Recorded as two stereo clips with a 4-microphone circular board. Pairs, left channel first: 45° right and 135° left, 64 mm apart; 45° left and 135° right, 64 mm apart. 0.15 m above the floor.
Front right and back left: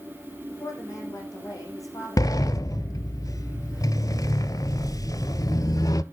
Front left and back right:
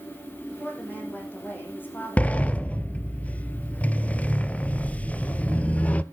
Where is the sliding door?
20° right, 0.5 m.